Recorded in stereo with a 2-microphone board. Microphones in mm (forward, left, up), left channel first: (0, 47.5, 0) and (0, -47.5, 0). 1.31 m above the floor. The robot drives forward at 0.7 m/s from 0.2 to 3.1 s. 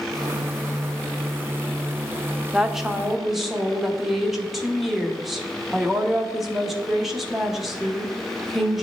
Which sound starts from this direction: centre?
A woman speaking, at 2.5 s.